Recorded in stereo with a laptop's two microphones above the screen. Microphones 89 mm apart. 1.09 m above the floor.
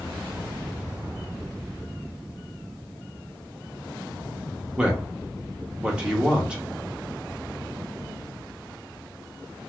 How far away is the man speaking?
About 1.1 m.